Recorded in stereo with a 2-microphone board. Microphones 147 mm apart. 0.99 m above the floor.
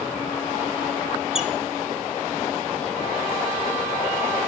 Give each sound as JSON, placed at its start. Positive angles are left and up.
{"t": 1.4, "sound": "a squeak", "side_deg": -5, "distance_m": 0.7}